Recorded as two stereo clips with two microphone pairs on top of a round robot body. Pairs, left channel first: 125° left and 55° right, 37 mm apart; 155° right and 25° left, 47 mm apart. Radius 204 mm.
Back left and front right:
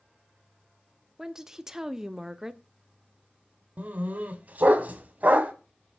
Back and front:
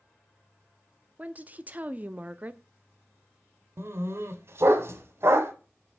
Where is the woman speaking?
10° right, 0.8 m.